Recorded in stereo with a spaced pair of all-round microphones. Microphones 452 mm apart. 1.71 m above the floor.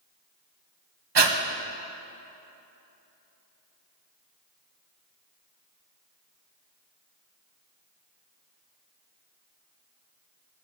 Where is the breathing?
65° right (ahead or behind), 0.8 m.